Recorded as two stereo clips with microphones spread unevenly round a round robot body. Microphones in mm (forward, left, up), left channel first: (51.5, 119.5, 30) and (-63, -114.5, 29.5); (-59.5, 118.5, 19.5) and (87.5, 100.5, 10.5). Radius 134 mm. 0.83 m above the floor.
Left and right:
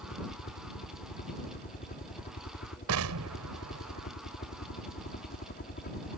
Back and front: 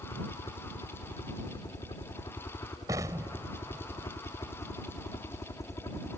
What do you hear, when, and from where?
0.0 s a helicopter: 120° left; by 6.2 s 110° left
2.9 s an explosion: 85° right